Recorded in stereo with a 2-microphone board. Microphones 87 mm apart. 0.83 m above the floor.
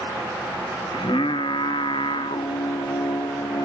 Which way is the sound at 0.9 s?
75° left (ahead or behind).